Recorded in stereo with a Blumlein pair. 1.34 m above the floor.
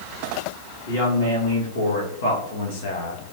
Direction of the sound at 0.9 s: 70° left.